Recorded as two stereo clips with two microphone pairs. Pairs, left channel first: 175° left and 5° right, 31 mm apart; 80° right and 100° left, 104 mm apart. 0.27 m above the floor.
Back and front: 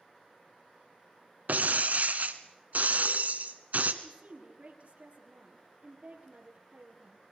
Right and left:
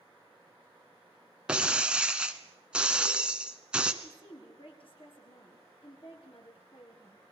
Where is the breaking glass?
20° left, 1.4 m.